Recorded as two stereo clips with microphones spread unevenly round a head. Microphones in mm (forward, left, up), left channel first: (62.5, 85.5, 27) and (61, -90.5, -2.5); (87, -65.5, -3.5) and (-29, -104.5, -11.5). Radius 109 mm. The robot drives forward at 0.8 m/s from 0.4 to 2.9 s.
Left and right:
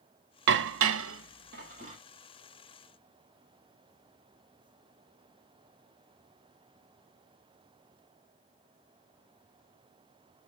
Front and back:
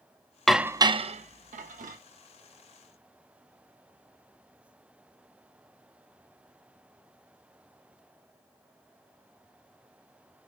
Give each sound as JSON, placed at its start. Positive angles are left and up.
{"t": 0.5, "sound": "dishes clattering", "azimuth_deg": -70, "distance_m": 0.5}